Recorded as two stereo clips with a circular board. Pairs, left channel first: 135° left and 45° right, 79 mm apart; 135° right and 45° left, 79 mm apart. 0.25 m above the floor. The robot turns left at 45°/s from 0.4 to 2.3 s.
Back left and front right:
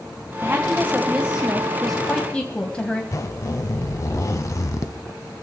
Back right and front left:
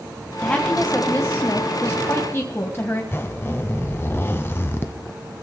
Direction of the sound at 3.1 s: 170° left.